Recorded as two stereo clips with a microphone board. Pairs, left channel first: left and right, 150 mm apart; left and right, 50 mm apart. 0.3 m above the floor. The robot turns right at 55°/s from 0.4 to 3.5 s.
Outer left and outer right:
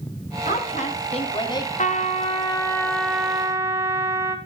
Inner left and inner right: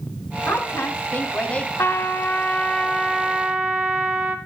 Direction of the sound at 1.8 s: 110° left.